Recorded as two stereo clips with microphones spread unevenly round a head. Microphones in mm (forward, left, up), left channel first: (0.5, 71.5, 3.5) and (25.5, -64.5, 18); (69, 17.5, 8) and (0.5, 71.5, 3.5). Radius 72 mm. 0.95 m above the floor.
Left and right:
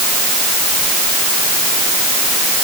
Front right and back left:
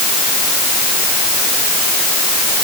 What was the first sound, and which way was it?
Only background noise.